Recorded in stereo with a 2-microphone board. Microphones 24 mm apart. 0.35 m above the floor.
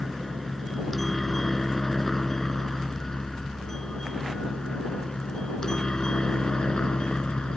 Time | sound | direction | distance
0.0 | a helicopter | 5° left (ahead or behind) | ?